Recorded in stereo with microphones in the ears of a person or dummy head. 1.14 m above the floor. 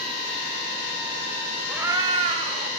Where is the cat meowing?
5° right (ahead or behind), 0.5 m; by 2.7 s 45° right (ahead or behind), 1.1 m.